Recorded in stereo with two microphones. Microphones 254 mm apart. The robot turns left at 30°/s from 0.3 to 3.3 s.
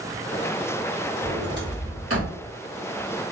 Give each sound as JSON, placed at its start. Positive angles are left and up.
{"t": 1.2, "sound": "a sliding door", "side_deg": -30, "distance_m": 1.5}